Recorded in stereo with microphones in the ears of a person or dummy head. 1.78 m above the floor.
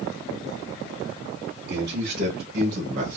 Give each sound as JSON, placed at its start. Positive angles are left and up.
{"t": 1.7, "sound": "a man speaking", "side_deg": -55, "distance_m": 2.0}